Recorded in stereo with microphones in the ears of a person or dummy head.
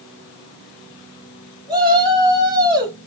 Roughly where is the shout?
Right.